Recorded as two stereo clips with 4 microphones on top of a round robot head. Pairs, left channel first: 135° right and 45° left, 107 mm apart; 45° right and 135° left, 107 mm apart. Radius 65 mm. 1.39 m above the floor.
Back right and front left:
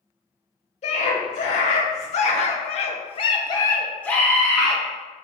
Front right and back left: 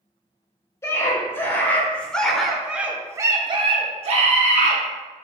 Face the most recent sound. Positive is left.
turn(degrees=130)